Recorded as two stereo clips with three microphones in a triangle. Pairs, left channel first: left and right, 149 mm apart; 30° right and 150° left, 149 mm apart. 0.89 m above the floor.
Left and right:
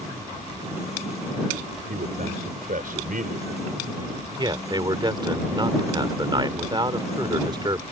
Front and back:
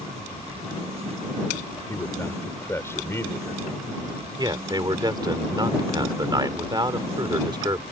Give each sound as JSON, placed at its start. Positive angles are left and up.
{"t": 1.9, "sound": "a man speaking", "azimuth_deg": -105}
{"t": 4.4, "sound": "a man speaking", "azimuth_deg": -150}